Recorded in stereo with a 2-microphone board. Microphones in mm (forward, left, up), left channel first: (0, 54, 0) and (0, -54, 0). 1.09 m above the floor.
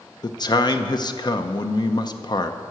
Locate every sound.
0.2 s a man speaking: 45° left (ahead or behind), 0.6 m